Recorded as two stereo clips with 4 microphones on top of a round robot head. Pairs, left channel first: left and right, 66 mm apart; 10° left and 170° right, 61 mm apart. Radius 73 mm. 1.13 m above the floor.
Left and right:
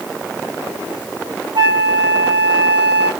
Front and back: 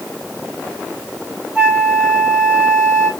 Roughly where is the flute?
Right.